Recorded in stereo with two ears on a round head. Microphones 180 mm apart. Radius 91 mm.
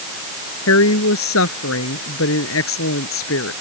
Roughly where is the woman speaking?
Left.